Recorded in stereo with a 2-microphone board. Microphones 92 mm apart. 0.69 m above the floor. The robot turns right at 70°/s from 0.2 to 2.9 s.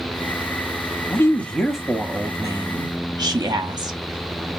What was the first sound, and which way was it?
A woman speaking, 135° left.